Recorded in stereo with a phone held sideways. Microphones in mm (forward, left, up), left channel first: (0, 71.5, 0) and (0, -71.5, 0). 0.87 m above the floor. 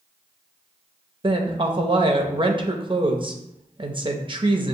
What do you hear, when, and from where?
1.2 s a woman speaking: 35° right (ahead or behind), 0.6 m